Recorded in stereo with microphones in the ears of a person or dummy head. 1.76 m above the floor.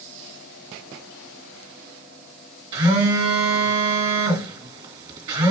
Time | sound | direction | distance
2.7 | a phone buzzing | 30° right (ahead or behind) | 1.8 m